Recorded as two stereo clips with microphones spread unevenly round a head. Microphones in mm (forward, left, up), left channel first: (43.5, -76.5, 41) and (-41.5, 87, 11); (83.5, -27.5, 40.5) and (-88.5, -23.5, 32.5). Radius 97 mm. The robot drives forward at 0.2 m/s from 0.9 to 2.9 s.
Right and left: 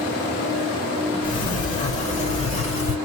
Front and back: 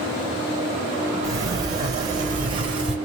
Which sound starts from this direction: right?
A sliding door, at 1.2 s.